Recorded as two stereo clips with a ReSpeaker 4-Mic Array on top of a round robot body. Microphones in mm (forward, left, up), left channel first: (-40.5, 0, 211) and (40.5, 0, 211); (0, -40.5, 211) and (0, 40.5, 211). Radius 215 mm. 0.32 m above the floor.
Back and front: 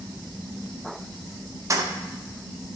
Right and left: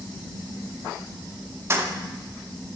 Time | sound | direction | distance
1.7 | keys jangling | 40° left | 0.9 m